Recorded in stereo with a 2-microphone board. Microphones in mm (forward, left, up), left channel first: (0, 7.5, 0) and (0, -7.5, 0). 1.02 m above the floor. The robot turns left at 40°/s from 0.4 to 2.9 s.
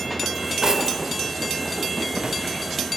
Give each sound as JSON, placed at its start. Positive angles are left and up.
{"t": 0.3, "sound": "cutlery clinking", "side_deg": -35, "distance_m": 1.8}